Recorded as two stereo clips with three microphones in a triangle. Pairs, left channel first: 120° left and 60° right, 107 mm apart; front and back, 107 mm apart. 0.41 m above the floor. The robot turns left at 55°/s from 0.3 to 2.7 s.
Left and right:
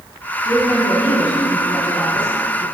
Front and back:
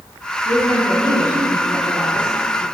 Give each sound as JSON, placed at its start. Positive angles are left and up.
{"t": 0.5, "sound": "a woman speaking", "azimuth_deg": 175, "distance_m": 4.0}